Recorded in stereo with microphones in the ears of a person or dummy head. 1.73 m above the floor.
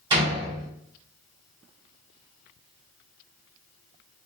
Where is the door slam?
25° right (ahead or behind), 1.5 m.